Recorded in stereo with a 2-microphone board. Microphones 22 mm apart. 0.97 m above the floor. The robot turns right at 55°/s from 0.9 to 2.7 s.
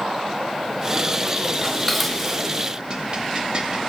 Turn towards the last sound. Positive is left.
turn(degrees=-35)  # may be behind; listen again after turning